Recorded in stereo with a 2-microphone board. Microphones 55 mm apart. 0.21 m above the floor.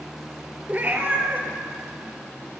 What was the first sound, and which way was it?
A cat meowing, 30° right (ahead or behind).